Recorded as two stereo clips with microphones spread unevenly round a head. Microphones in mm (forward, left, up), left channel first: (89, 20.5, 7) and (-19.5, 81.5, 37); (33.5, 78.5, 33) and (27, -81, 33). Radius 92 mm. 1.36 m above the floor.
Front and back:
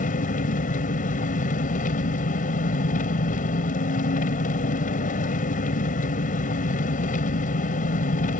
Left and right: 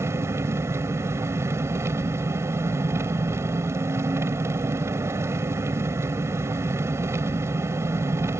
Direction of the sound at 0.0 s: 20° right.